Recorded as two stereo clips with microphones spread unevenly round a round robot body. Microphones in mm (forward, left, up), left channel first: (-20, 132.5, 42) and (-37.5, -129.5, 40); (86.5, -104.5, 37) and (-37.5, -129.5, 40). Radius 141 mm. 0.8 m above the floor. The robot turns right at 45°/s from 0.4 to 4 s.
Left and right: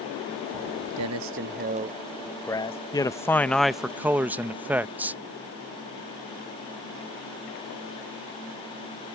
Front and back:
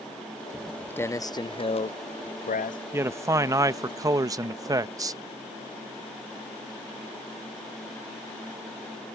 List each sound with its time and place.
0.5 s footsteps: 80° right; by 2.8 s 15° left
2.9 s a man speaking: 145° left; by 5.2 s 170° right